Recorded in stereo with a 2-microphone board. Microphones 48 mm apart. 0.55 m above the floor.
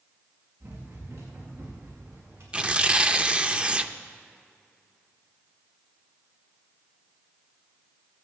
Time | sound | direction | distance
0.6 | running footsteps | 85° right | 6 m
2.5 | tearing paper | 25° right (ahead or behind) | 0.5 m